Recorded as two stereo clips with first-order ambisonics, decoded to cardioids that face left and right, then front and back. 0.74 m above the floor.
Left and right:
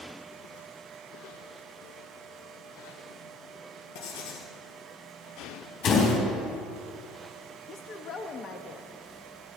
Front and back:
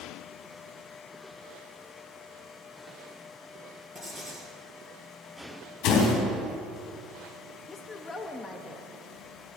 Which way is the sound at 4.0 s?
95° left.